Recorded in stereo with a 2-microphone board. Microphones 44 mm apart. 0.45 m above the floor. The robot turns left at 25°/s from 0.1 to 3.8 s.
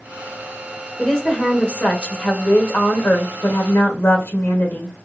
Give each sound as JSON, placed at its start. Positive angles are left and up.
{"t": 1.0, "sound": "a woman speaking", "azimuth_deg": 160, "distance_m": 1.4}